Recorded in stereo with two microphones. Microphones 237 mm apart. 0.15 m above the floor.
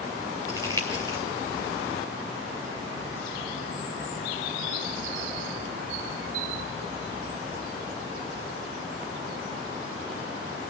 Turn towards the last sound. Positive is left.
turn(degrees=-15)  # may be behind; listen again after turning